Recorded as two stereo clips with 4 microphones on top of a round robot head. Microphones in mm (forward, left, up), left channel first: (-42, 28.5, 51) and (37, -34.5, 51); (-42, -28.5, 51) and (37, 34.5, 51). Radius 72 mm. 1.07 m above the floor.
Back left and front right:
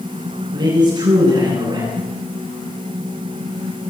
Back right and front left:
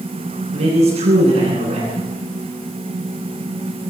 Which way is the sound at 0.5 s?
10° left.